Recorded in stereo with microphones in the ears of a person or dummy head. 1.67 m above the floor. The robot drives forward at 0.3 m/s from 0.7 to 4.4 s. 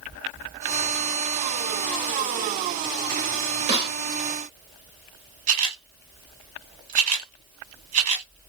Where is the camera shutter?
45° right (ahead or behind), 1.2 m.